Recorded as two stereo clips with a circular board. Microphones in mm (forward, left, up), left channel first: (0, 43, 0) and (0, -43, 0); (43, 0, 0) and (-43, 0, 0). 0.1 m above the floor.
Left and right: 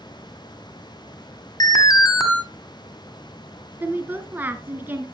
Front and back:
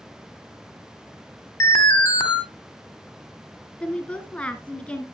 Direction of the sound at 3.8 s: 60° right.